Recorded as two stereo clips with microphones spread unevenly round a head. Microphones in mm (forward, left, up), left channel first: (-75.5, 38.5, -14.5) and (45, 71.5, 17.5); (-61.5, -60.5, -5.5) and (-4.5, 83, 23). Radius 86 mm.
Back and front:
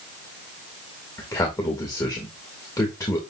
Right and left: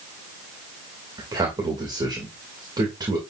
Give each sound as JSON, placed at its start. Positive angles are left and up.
{"t": 1.2, "sound": "a man speaking", "azimuth_deg": 135, "distance_m": 2.5}